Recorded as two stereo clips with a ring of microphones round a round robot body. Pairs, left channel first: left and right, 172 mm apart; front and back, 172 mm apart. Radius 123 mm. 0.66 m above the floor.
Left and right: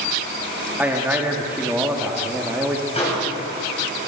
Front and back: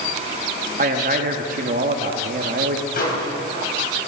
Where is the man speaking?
170° right, 0.7 m.